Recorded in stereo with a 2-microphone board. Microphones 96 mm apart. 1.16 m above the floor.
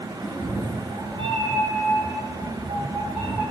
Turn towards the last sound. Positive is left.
turn(degrees=-55)  # may be behind; listen again after turning